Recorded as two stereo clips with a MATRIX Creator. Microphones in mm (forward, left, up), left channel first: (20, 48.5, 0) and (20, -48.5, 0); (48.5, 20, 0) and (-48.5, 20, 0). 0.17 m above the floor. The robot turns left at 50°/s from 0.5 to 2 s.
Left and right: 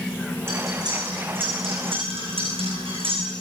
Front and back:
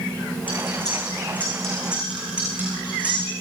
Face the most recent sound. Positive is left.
turn(degrees=-105)